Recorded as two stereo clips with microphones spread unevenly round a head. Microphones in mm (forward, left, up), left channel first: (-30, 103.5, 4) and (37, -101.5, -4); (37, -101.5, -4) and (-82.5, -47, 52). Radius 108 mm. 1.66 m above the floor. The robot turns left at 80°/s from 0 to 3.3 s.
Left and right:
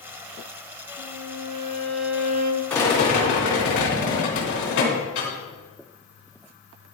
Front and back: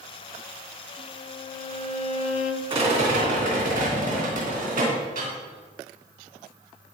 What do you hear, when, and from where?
1.0 s a violin: 100° left, 1.2 m; by 2.6 s 30° right, 1.2 m
2.7 s a rattle: 170° right, 3 m; by 5.3 s 140° left, 3 m